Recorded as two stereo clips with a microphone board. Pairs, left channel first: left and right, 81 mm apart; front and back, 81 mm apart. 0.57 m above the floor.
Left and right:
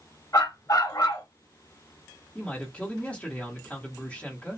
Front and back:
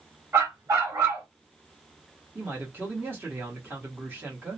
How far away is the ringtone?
I don't hear a ringtone.